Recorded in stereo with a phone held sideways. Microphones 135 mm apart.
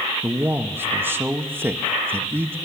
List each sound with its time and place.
0.2 s a man speaking: 15° right (ahead or behind), 0.8 m